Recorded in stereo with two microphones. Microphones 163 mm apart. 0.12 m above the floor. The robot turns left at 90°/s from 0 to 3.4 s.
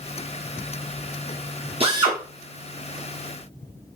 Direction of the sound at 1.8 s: 120° right.